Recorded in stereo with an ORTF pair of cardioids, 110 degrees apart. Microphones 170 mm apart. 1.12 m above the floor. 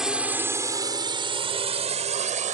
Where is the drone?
5° right; by 2.6 s 45° right.